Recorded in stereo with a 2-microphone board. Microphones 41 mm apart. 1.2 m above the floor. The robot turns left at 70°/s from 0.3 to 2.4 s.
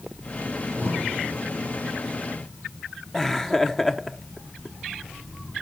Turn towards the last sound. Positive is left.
turn(degrees=10)  # may be behind; listen again after turning